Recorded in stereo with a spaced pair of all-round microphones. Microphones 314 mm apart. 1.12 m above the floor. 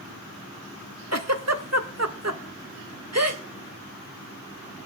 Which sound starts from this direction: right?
A giggle, at 1.1 s.